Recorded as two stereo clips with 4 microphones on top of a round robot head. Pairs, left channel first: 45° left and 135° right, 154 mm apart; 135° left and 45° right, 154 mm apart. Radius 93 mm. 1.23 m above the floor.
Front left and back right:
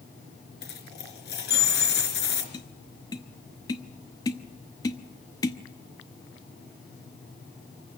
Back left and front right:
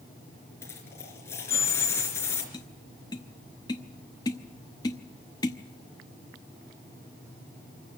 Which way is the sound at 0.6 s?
60° left.